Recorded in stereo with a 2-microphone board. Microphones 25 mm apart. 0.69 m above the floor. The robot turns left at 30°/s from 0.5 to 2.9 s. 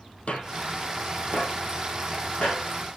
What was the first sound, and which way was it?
Footsteps, 60° left (ahead or behind).